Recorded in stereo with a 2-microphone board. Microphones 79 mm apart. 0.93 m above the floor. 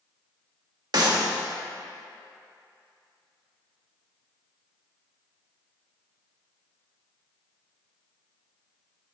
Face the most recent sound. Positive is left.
turn(degrees=-60)  # may be behind; listen again after turning